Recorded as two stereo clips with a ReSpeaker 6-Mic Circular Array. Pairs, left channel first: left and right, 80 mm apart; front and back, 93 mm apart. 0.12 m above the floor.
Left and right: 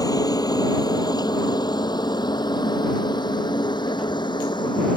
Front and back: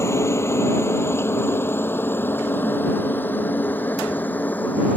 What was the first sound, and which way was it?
A helicopter, 55° left.